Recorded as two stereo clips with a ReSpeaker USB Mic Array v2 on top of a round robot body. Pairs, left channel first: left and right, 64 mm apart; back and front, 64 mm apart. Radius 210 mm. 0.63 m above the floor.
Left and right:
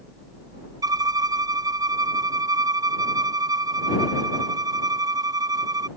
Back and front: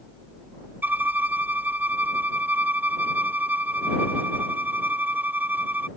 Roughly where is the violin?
Ahead right.